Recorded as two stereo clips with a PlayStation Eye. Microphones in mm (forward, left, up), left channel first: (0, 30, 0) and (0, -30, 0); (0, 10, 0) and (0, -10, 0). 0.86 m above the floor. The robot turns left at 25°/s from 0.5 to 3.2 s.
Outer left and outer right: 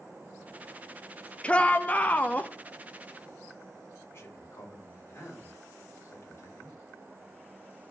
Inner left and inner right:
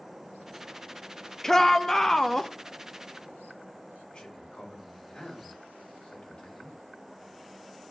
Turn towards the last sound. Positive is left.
turn(degrees=45)  # may be behind; listen again after turning